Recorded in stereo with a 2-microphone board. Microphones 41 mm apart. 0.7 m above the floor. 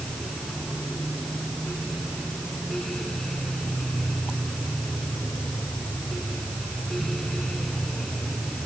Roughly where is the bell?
I don't hear a bell.